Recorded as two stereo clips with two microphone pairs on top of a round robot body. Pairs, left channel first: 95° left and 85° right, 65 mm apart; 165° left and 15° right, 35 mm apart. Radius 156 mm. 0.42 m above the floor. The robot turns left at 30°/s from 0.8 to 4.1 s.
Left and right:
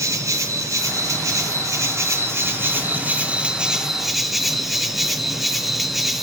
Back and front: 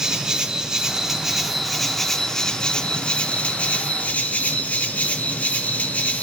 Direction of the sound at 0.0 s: 80° right.